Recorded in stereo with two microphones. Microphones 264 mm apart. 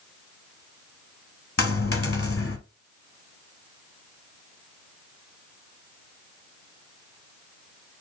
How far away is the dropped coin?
About 0.7 m.